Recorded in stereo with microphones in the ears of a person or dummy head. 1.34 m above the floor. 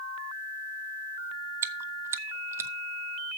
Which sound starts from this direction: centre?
Chewing, at 1.6 s.